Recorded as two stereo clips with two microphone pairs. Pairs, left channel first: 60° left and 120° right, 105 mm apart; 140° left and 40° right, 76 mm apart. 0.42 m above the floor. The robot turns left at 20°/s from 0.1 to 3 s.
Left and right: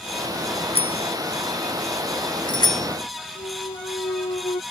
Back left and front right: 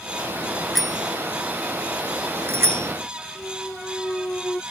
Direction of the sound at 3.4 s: 65° left.